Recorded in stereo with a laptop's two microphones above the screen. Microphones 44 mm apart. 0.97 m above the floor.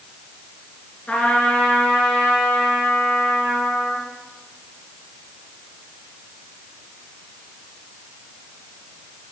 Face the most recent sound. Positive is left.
turn(degrees=30)  # may be behind; listen again after turning